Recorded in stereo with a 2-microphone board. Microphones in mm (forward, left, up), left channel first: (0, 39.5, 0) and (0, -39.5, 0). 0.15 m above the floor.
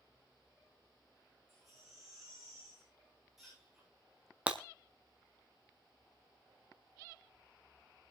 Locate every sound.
1.5 s a baby crying: centre (ahead or behind), 10 m
4.5 s breaking glass: 15° right (ahead or behind), 1.2 m